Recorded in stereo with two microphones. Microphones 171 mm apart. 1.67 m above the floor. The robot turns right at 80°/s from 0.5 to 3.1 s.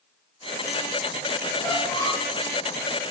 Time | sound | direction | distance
1.6 | a squeak | 15° left (ahead or behind) | 0.6 m